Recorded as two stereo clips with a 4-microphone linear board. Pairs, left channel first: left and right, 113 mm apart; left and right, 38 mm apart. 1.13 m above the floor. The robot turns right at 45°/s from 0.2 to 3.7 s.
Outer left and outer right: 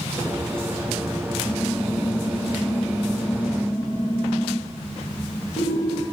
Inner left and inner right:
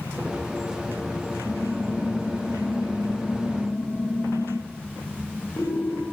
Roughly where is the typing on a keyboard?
Ahead left.